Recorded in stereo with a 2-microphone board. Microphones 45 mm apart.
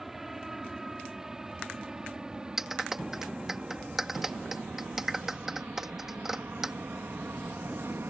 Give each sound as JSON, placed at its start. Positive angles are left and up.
{"t": 0.0, "sound": "an aircraft", "side_deg": -5}
{"t": 2.6, "sound": "a clap", "side_deg": -10}